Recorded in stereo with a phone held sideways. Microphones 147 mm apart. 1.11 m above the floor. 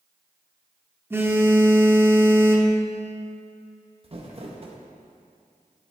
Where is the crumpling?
40° right (ahead or behind), 1.0 m.